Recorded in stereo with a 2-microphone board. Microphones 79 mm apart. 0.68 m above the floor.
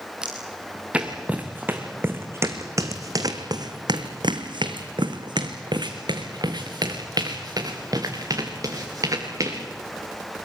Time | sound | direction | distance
0.2 | footsteps | 10° right (ahead or behind) | 3.5 m